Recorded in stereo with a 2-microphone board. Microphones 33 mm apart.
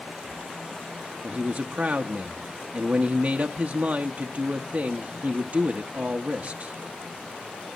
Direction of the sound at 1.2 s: 50° right (ahead or behind).